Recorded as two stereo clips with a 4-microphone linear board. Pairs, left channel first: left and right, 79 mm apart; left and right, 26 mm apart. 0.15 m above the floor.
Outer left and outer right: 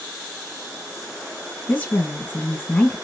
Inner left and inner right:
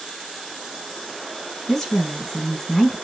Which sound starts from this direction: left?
A woman speaking, at 1.7 s.